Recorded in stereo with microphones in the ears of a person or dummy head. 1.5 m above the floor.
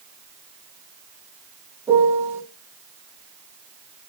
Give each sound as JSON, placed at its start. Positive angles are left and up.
{"t": 1.9, "sound": "a piano", "side_deg": -15, "distance_m": 1.0}